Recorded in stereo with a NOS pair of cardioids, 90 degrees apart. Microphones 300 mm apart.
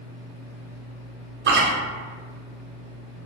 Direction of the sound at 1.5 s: 40° right.